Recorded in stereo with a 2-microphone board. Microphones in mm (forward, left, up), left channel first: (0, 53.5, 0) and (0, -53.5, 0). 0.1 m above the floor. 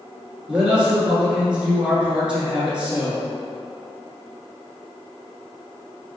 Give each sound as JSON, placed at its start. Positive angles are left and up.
{"t": 0.5, "sound": "a man speaking", "side_deg": -10, "distance_m": 1.1}